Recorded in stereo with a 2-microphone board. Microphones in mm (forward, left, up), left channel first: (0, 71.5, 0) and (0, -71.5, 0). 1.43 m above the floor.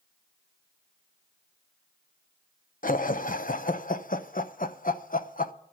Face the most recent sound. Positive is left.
turn(degrees=70)  # may be behind; listen again after turning